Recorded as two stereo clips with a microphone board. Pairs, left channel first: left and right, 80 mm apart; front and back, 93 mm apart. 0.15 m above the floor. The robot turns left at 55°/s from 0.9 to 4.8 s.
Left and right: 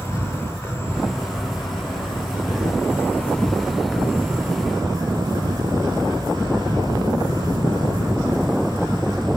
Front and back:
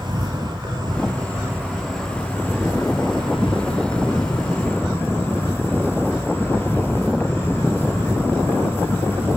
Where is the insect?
150° left, 5 m; by 9.4 s 65° right, 5 m.